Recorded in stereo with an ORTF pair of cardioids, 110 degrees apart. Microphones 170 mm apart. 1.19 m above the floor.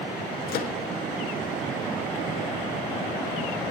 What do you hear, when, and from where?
0.5 s a microwave: 65° left, 1.7 m